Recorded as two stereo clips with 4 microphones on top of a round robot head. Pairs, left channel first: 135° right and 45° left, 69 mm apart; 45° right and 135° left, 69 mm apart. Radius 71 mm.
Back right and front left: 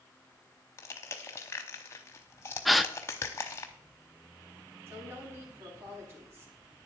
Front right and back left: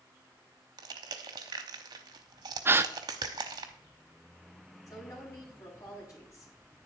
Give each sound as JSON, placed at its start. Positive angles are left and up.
{"t": 0.8, "sound": "crushing", "azimuth_deg": 170, "distance_m": 0.8}
{"t": 2.6, "sound": "a gasp", "azimuth_deg": 135, "distance_m": 0.6}
{"t": 4.9, "sound": "a woman speaking", "azimuth_deg": -5, "distance_m": 5.0}